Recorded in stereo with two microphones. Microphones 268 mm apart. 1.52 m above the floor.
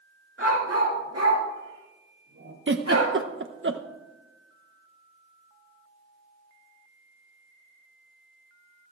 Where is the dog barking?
55° right (ahead or behind), 5 m; by 3.1 s 80° right, 6.5 m.